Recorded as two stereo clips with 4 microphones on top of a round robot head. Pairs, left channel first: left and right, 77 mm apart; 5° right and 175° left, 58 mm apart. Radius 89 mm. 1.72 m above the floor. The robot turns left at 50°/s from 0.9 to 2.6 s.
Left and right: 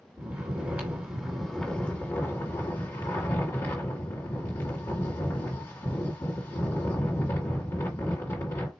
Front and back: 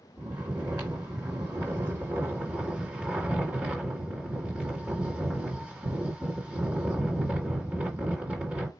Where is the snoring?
150° right, 1.4 m; by 8.7 s 125° left, 1.4 m.